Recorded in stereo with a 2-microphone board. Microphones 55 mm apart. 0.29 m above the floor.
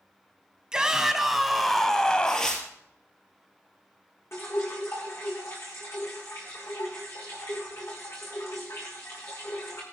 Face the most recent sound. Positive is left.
turn(degrees=50)  # may be behind; listen again after turning